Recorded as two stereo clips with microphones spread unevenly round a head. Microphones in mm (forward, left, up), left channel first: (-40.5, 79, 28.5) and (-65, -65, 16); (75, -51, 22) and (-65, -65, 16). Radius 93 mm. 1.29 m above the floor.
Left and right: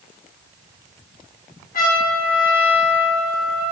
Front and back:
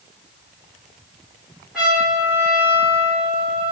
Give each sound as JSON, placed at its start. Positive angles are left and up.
{"t": 1.7, "sound": "a trumpet", "azimuth_deg": 100, "distance_m": 4.5}